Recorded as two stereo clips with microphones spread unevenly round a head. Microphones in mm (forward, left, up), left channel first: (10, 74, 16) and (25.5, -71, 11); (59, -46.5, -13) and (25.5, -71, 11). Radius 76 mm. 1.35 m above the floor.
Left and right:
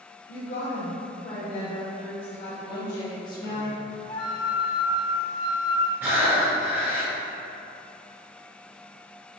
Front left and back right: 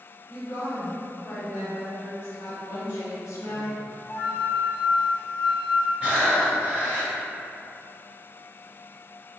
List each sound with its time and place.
0.3 s a woman speaking: 90° left, 1.1 m
2.6 s a woman speaking: 35° left, 1.1 m
4.1 s a flute: 60° left, 1.7 m
6.0 s breathing: 160° right, 1.2 m